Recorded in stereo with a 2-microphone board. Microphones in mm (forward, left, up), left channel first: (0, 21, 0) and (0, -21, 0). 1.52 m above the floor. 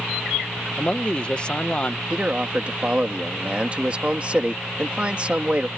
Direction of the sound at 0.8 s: 25° left (ahead or behind).